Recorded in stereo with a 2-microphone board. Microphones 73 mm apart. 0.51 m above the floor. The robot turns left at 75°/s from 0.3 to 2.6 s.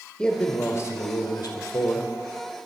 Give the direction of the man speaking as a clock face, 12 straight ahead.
6 o'clock.